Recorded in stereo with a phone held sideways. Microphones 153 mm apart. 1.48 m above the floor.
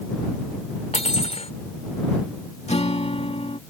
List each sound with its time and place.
0.9 s cutlery clinking: 45° left (ahead or behind)
2.7 s a guitar: 45° left (ahead or behind)